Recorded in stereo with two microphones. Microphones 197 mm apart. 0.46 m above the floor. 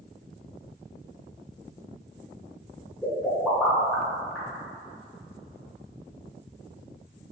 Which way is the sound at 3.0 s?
5° left (ahead or behind).